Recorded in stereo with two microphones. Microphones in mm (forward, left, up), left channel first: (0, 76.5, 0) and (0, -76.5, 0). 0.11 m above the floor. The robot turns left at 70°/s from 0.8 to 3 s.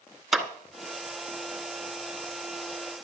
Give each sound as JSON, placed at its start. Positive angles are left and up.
{"t": 0.3, "sound": "a clap", "side_deg": 0, "distance_m": 1.1}